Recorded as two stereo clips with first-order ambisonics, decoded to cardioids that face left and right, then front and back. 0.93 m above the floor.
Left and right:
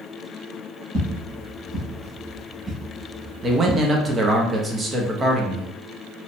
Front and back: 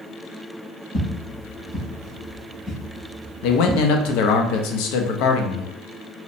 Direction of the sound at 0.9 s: 50° right.